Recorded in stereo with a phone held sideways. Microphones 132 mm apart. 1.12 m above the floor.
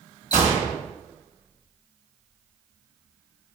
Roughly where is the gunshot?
Left.